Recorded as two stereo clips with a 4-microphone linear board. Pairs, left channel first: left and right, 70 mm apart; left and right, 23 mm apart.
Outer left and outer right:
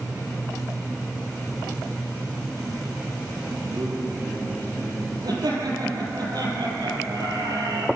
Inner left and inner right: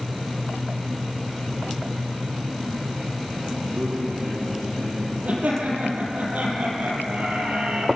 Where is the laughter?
70° right (ahead or behind), 7.5 m.